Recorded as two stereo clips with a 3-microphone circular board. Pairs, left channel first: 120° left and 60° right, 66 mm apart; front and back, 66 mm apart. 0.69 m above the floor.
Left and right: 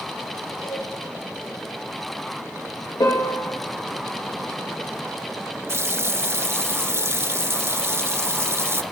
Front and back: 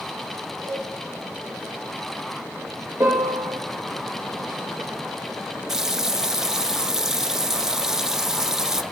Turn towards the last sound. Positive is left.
turn(degrees=-100)